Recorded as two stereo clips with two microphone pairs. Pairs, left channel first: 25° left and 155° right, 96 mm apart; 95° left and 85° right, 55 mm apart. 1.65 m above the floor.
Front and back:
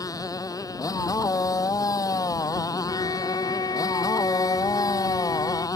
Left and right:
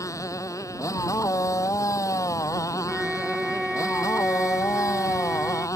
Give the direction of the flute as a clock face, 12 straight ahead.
12 o'clock.